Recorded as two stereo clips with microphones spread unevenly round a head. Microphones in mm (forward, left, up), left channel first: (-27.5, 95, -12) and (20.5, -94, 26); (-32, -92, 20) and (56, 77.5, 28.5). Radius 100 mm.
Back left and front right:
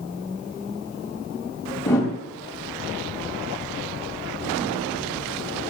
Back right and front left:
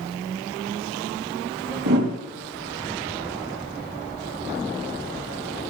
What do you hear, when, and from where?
1.9 s a whoosh: 25° left, 3 m